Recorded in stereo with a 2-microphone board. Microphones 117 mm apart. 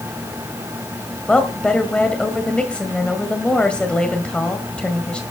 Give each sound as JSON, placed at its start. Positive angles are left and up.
{"t": 1.3, "sound": "a woman speaking", "side_deg": 10, "distance_m": 1.8}